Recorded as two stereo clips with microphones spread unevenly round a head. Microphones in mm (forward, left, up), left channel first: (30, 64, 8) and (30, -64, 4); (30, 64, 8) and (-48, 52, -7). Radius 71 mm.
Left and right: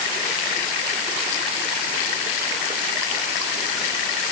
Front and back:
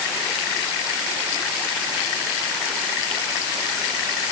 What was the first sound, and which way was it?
Only background noise.